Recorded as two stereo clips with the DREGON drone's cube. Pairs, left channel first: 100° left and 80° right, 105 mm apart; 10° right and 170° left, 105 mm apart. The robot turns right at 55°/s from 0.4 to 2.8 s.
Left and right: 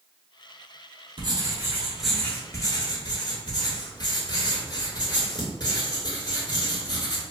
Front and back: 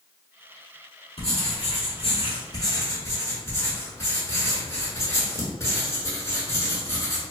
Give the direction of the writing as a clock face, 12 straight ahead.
1 o'clock.